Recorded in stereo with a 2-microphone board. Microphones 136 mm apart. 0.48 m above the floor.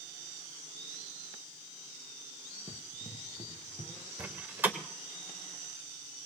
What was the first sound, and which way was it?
Running footsteps, centre (ahead or behind).